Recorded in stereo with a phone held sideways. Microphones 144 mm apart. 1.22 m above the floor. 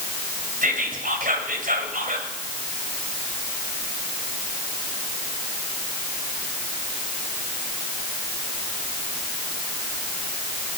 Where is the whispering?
85° right, 5 m.